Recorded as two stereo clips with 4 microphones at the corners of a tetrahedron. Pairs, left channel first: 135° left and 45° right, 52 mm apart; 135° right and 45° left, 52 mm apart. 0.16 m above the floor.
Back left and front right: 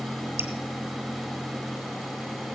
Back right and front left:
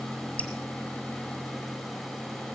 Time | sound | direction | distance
0.4 | dripping | 85° right | 1.8 m